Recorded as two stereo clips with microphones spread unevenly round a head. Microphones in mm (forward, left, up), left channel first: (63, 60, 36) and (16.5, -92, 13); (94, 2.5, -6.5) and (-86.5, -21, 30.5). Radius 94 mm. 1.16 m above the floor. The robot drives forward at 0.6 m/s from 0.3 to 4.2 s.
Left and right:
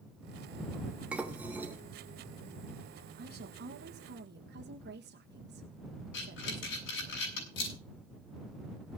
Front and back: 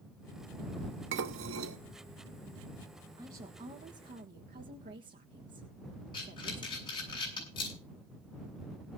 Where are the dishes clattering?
165° left, 1.0 m; by 1.8 s 170° left, 1.4 m.